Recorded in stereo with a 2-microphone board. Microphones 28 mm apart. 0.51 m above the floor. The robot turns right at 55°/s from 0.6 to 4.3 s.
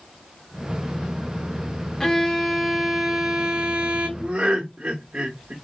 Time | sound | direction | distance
2.0 | a violin | 150° left | 0.9 m
4.2 | laughter | 35° right (ahead or behind) | 1.2 m